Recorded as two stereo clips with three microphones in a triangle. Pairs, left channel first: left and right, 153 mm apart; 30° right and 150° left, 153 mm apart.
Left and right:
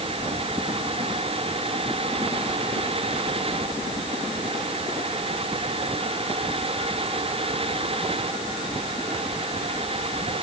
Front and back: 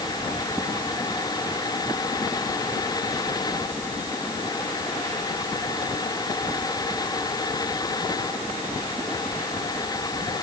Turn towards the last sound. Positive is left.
No sound to turn to.